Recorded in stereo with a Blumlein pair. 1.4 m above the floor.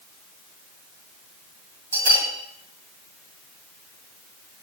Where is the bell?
65° right, 2 m.